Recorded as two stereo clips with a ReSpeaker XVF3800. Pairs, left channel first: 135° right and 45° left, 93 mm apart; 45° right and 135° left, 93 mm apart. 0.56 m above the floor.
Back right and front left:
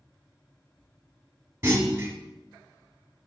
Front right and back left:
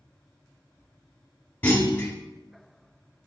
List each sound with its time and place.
1.6 s a clunk: 10° left, 1.2 m